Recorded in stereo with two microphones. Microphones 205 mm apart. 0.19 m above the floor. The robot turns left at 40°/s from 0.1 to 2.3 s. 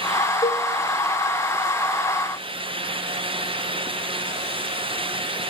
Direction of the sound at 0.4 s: 15° left (ahead or behind).